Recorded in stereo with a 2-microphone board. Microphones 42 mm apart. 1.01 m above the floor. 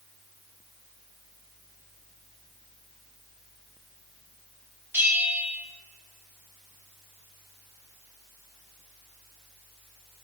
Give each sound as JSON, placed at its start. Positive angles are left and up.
{"t": 4.9, "sound": "a bell", "side_deg": -65, "distance_m": 0.9}